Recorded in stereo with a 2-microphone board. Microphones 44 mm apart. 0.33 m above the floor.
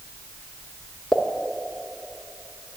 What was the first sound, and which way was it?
A pop, 5° left (ahead or behind).